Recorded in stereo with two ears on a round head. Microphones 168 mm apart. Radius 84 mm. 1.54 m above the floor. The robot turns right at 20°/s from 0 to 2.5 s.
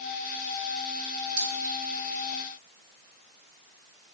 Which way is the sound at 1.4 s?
45° right (ahead or behind).